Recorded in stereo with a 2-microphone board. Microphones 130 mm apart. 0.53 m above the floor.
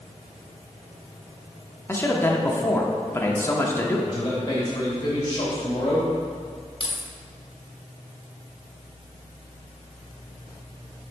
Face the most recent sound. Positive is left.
turn(degrees=45)  # may be behind; listen again after turning